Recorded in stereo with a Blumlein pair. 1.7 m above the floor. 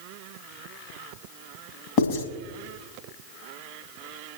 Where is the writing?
45° left, 2.5 m.